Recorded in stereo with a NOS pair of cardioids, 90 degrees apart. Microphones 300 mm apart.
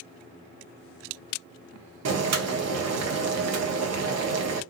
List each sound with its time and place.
2.0 s boiling: 60° right, 1.0 m